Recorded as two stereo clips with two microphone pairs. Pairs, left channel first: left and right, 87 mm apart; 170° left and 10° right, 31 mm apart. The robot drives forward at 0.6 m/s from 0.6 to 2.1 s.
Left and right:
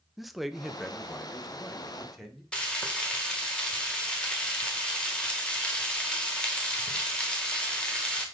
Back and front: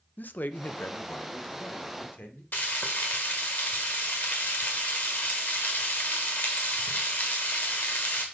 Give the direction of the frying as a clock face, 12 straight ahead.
6 o'clock.